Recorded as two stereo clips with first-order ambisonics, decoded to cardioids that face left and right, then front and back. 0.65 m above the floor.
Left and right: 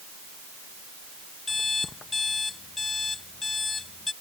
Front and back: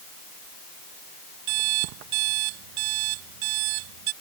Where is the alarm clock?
165° left.